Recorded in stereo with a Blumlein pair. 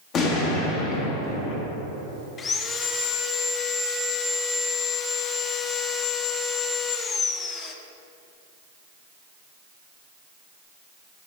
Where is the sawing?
20° left, 0.6 m.